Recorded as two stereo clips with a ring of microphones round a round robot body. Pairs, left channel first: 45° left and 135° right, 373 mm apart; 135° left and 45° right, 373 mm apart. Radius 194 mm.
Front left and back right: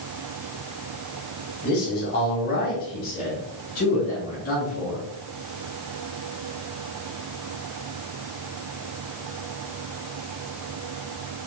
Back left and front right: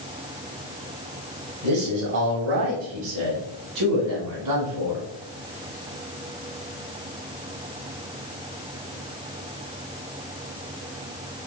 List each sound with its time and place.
1.6 s a man speaking: 15° right, 1.8 m; by 5.0 s 20° right, 4 m